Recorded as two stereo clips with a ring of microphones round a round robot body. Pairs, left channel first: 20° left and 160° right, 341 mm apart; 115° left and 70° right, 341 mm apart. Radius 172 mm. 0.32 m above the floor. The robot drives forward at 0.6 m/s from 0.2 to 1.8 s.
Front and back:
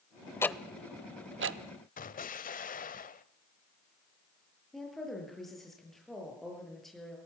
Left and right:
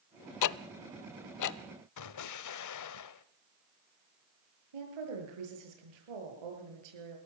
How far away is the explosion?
About 1.1 m.